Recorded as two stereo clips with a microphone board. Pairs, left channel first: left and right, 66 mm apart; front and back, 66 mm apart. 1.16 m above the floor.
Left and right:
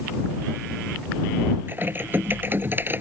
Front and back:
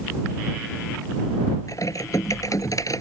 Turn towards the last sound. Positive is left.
turn(degrees=-35)